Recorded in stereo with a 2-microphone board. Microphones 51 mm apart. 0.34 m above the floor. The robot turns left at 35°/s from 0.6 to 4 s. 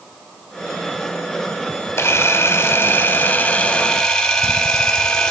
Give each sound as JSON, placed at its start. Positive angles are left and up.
{"t": 2.0, "sound": "a camera shutter", "azimuth_deg": 85, "distance_m": 0.9}